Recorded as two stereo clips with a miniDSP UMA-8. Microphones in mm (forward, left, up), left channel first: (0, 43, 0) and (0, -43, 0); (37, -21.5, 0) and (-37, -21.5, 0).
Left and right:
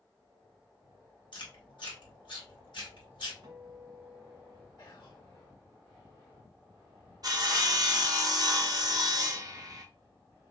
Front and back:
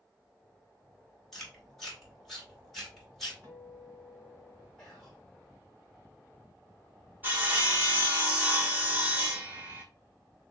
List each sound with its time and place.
1.3 s chewing: 85° left, 2.5 m
3.4 s a guitar: 130° right, 2.5 m
4.8 s whispering: 80° left, 2 m
7.2 s sawing: 120° right, 1.2 m